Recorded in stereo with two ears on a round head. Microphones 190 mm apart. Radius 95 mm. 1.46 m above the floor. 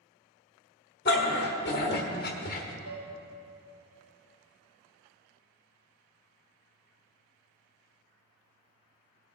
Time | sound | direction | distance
1.1 | a dog barking | 50° left (ahead or behind) | 1.8 m
2.9 | dishes clattering | 40° right (ahead or behind) | 2.5 m